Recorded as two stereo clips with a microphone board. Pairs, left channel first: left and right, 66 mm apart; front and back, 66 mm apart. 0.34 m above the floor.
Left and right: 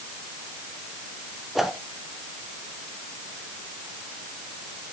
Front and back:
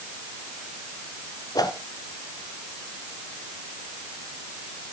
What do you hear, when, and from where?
1.6 s a whoosh: 5° right, 1.0 m